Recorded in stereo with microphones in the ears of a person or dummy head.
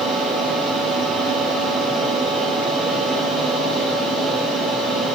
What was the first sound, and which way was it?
A fan, centre (ahead or behind).